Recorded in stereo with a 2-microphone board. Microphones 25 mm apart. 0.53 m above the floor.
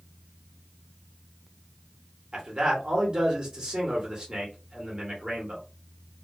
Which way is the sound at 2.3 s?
30° right (ahead or behind).